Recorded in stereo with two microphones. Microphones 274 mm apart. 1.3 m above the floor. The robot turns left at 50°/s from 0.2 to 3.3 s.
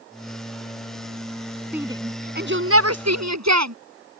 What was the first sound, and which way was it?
A shout, 5° right (ahead or behind).